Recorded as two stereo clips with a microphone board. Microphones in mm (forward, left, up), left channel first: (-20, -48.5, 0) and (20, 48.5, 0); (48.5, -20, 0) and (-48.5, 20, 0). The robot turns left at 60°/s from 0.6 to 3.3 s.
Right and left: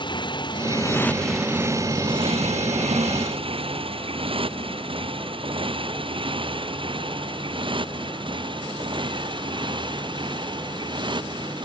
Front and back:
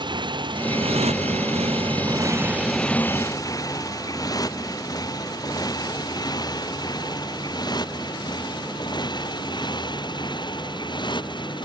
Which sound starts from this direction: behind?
A motorcycle, at 0.0 s.